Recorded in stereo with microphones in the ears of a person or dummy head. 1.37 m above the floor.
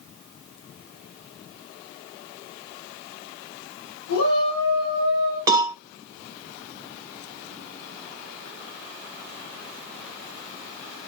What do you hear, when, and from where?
4.1 s a shout: 90° left, 5.5 m; by 5.4 s 80° left, 5.5 m
5.5 s a cowbell: 20° right (ahead or behind), 1.4 m